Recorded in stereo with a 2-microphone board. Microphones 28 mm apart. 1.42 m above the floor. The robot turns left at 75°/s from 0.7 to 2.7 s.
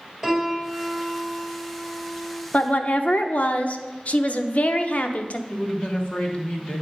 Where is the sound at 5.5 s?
40° left (ahead or behind), 1.3 m.